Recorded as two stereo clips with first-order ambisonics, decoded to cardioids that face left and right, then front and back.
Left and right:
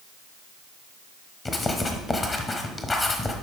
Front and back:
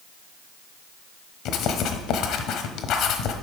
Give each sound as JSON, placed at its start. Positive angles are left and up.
{"t": 1.4, "sound": "writing", "azimuth_deg": 20, "distance_m": 1.0}